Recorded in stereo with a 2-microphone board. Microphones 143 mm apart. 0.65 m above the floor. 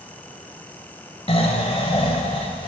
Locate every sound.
1.3 s snoring: 40° left (ahead or behind), 1.4 m